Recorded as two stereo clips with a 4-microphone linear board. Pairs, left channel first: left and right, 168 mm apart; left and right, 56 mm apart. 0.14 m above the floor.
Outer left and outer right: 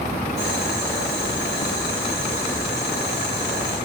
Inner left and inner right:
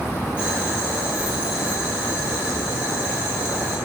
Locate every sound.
0.4 s boiling: 20° right (ahead or behind), 5.5 m